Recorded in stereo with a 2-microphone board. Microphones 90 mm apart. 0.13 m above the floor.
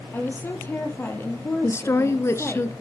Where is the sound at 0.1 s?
25° left (ahead or behind), 4 m.